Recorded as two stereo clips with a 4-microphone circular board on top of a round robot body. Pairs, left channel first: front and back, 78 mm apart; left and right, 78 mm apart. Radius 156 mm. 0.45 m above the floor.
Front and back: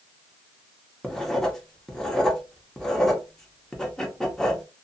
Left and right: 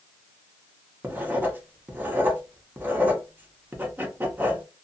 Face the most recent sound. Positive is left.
turn(degrees=-75)